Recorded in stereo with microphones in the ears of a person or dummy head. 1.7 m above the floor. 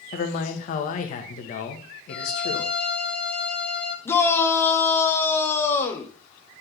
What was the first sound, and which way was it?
A man speaking, 45° left (ahead or behind).